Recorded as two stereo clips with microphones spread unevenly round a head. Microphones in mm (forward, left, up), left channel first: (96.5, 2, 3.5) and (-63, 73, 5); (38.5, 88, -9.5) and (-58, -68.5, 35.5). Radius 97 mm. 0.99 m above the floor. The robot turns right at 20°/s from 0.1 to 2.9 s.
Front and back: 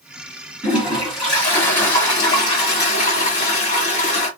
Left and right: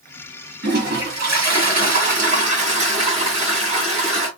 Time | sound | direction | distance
0.6 | a toilet flushing | 125° right | 1.6 m